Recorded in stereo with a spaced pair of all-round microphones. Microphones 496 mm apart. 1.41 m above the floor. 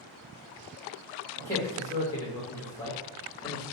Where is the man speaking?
5° left (ahead or behind), 1.3 m.